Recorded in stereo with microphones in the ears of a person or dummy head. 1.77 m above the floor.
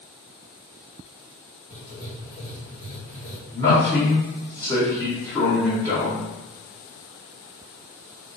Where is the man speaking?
15° left (ahead or behind), 1.5 m.